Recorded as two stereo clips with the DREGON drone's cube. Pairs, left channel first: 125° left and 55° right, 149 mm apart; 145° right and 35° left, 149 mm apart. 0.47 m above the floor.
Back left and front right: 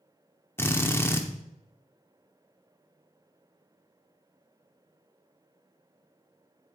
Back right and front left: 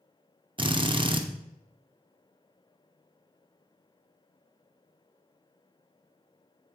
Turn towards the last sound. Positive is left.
turn(degrees=60)